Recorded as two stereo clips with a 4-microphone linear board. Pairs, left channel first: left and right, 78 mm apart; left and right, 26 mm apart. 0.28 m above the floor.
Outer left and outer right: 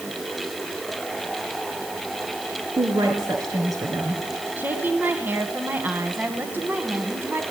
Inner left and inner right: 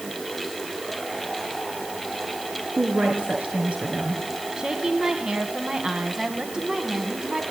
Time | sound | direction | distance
2.8 | a woman speaking | 50° right (ahead or behind) | 3.5 m
4.6 | a woman speaking | 25° right (ahead or behind) | 2.5 m